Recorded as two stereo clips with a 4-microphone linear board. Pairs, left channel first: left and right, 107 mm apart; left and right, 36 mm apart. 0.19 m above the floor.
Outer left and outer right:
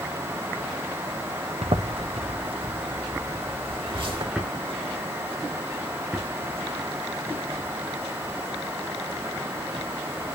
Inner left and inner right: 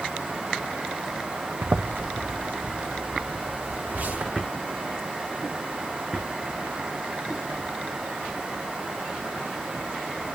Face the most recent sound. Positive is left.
turn(degrees=-10)  # may be behind; listen again after turning